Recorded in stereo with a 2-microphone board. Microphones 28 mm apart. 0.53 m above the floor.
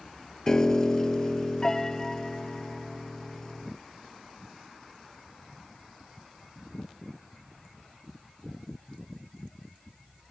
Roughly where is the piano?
Left.